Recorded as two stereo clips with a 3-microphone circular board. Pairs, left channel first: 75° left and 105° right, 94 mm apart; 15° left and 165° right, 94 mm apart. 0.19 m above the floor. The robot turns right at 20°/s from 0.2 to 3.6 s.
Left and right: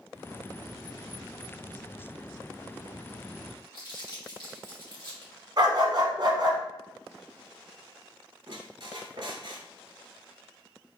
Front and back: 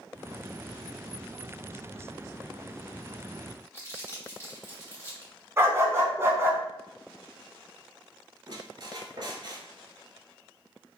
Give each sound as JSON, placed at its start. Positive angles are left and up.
{"t": 3.7, "sound": "crumpling", "azimuth_deg": 70, "distance_m": 2.0}
{"t": 5.6, "sound": "a dog barking", "azimuth_deg": -115, "distance_m": 0.7}
{"t": 8.5, "sound": "a squeak", "azimuth_deg": -130, "distance_m": 0.6}